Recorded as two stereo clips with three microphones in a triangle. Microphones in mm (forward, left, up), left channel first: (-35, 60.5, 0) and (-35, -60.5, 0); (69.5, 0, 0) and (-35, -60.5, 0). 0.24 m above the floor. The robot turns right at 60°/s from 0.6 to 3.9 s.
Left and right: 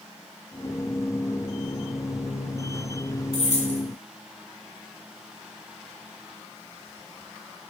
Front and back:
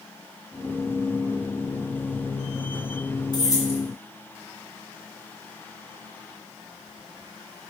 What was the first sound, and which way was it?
Keys jangling, 75° left.